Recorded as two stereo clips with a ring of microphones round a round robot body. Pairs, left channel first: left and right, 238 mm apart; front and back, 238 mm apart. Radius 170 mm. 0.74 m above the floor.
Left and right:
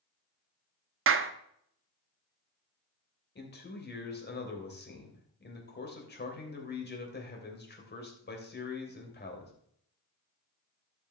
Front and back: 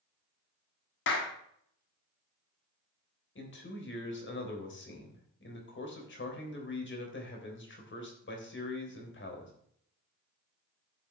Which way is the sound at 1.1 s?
55° right.